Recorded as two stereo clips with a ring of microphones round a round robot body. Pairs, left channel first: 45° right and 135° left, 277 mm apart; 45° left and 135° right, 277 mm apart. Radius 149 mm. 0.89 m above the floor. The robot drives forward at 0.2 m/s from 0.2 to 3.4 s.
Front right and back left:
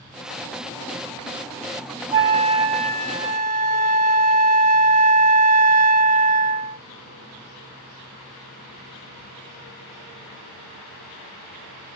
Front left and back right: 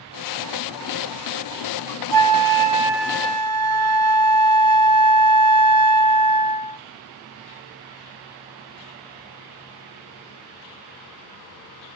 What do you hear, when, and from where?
2.1 s a flute: 150° right, 0.8 m; by 6.8 s 160° right, 1.0 m